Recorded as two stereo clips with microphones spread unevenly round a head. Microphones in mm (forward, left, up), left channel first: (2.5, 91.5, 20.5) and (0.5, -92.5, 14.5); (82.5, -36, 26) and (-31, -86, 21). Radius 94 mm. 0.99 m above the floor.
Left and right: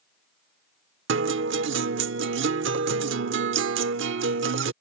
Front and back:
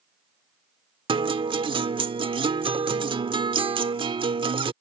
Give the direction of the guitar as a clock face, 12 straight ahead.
4 o'clock.